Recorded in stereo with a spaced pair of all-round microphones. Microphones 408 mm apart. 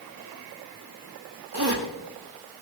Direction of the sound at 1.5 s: 65° right (ahead or behind).